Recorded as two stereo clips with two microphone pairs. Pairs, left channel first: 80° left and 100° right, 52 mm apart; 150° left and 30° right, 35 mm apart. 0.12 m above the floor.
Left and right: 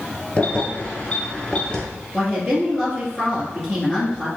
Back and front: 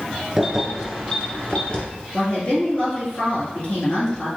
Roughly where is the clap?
I don't hear a clap.